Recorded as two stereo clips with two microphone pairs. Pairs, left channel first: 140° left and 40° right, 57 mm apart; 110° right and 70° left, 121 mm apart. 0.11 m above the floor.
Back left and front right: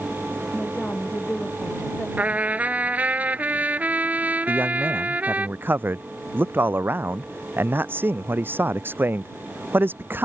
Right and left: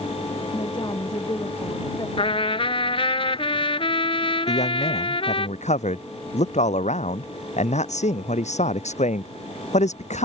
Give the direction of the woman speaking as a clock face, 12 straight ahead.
5 o'clock.